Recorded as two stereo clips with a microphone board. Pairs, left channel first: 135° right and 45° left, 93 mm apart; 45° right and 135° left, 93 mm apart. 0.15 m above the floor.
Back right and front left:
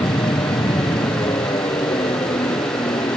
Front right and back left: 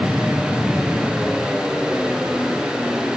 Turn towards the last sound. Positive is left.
turn(degrees=-140)